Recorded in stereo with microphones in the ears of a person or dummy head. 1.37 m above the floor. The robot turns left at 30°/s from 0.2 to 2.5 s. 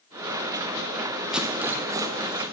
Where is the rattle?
Centre (ahead or behind), 0.7 m; by 2.4 s 25° right (ahead or behind), 0.7 m.